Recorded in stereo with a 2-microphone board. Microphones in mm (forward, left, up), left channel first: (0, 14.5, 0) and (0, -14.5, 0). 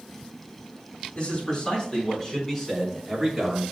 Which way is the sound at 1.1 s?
35° left (ahead or behind).